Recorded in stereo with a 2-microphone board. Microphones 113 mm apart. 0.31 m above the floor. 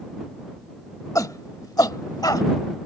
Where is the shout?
30° left (ahead or behind); by 2.5 s 35° left (ahead or behind).